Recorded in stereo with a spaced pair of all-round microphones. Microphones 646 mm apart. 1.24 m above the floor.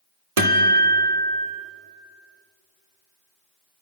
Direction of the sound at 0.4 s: 60° right (ahead or behind).